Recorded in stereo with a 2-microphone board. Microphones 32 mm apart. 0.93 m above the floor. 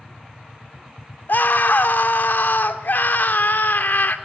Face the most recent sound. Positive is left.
turn(degrees=70)  # may be behind; listen again after turning